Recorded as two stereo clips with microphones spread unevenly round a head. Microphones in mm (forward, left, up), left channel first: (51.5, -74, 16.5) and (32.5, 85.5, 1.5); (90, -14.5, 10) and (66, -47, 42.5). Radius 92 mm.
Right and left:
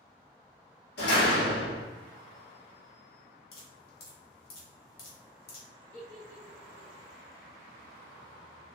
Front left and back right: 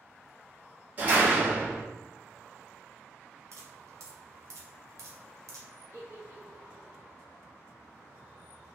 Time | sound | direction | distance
1.0 | a door slam | 95° right | 1.6 m
3.5 | dripping | 115° right | 0.9 m
5.9 | a giggle | 95° right | 1.7 m